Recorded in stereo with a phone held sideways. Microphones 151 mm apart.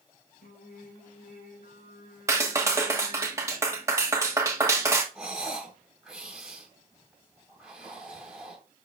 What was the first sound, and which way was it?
Singing, 75° left (ahead or behind).